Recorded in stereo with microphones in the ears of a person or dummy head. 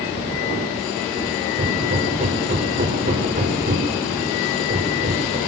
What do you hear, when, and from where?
1.6 s hammering: 40° right (ahead or behind), 4.5 m